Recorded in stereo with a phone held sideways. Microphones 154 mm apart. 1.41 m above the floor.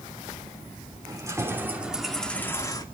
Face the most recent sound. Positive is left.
turn(degrees=30)  # may be behind; listen again after turning